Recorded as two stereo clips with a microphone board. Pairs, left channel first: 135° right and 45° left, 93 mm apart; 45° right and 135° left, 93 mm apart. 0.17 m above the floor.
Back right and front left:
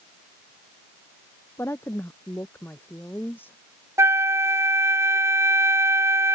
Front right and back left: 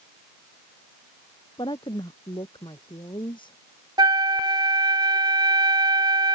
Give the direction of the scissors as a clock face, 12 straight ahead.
I don't hear scissors.